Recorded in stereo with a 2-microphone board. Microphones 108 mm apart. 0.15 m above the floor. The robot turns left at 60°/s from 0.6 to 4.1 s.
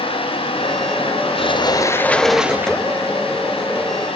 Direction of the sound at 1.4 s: 60° left.